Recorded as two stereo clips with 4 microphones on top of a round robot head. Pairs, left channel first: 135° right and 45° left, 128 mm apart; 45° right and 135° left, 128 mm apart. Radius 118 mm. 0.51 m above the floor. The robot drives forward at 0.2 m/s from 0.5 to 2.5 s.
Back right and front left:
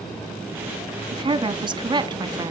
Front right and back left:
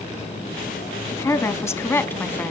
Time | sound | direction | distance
1.1 | a woman speaking | 10° left | 1.0 m